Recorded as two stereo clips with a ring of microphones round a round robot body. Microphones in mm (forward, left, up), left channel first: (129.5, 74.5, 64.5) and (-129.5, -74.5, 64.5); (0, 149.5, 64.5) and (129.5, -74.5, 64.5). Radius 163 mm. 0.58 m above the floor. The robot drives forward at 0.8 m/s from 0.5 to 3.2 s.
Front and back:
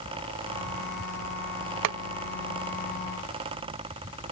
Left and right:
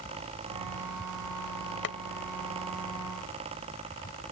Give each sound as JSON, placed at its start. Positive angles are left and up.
{"t": 1.8, "sound": "boiling", "azimuth_deg": 175}